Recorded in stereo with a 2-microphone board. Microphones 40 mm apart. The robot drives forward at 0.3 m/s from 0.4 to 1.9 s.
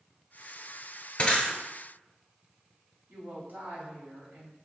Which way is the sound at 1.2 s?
30° left (ahead or behind).